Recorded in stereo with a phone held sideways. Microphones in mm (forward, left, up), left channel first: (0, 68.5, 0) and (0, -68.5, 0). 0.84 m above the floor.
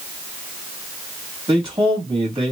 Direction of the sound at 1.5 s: 35° right (ahead or behind).